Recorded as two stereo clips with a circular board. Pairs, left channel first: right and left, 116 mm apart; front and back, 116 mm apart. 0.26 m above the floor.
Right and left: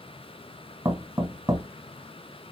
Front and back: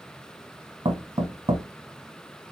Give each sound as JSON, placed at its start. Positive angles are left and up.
{"t": 0.8, "sound": "knocking", "azimuth_deg": 150, "distance_m": 1.4}